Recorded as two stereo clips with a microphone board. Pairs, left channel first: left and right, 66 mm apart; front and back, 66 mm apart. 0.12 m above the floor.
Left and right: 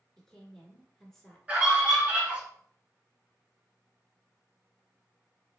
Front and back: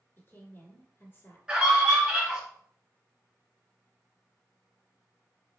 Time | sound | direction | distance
0.2 | a woman speaking | 10° left | 1.3 m
1.5 | a scream | 120° right | 1.8 m